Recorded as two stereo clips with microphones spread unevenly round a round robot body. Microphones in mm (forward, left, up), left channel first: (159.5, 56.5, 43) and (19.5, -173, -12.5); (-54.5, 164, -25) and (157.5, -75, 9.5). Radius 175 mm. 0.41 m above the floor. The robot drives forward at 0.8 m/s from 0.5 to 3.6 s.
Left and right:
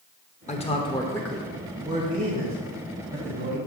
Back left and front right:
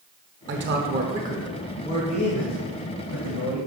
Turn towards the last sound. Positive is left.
turn(degrees=-175)